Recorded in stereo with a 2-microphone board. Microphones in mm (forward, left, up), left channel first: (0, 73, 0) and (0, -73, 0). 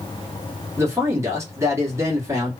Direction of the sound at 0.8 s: 20° right (ahead or behind).